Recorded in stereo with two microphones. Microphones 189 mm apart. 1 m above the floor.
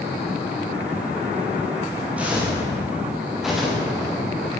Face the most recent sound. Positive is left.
turn(degrees=5)  # may be behind; listen again after turning